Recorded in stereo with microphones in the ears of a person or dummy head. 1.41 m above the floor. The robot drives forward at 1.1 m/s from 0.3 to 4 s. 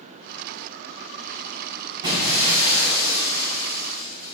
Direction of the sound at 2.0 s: 25° right (ahead or behind).